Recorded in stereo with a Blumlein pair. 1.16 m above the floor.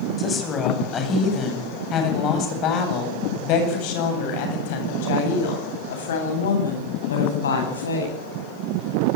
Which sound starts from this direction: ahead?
A woman speaking, at 0.2 s.